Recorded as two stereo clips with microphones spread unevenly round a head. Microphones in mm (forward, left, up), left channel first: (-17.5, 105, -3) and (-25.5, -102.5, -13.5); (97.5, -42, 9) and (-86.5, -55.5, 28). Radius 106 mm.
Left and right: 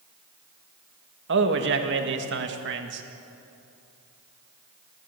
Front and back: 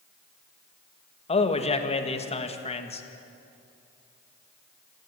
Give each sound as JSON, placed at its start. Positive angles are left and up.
{"t": 1.3, "sound": "a man speaking", "azimuth_deg": -50, "distance_m": 1.9}